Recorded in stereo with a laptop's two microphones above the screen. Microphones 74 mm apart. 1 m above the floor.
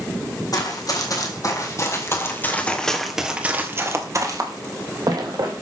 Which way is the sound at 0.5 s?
55° left (ahead or behind).